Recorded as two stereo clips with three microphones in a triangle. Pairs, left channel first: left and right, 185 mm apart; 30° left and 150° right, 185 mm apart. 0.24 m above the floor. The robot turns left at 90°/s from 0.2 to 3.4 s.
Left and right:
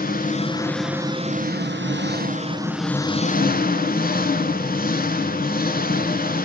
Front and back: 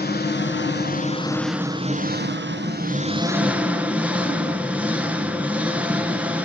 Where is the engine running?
55° left, 1.0 m; by 6.5 s 130° left, 1.0 m.